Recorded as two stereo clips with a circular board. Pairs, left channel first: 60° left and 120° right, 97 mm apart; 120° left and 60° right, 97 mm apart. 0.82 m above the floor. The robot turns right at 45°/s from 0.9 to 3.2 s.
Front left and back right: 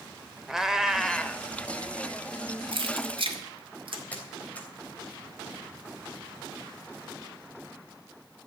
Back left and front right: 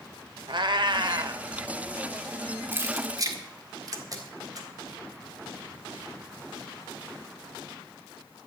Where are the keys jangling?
125° right, 1.8 m; by 4.0 s 105° right, 1.8 m.